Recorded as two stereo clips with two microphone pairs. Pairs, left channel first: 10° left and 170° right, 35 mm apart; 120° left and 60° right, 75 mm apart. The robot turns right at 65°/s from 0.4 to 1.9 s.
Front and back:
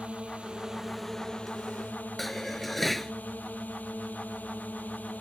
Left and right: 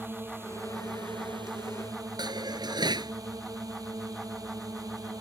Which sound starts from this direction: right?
Dishes clattering, at 2.2 s.